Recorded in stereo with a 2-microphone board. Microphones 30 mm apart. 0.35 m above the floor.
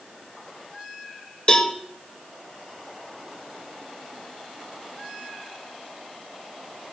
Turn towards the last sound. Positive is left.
turn(degrees=30)  # may be behind; listen again after turning